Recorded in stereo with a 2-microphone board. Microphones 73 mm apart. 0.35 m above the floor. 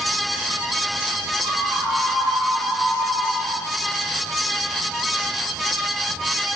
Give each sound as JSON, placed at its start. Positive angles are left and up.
{"t": 1.4, "sound": "a scream", "side_deg": -55, "distance_m": 9.5}